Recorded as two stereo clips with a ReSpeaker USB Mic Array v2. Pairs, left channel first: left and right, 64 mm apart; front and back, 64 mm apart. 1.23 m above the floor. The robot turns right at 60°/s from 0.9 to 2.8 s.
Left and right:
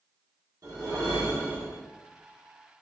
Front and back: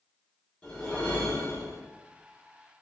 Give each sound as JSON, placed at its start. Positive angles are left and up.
{"t": 0.6, "sound": "a whoosh", "azimuth_deg": -70, "distance_m": 1.3}